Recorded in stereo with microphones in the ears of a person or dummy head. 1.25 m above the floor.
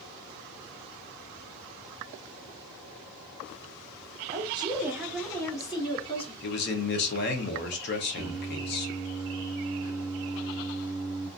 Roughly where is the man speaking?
Left.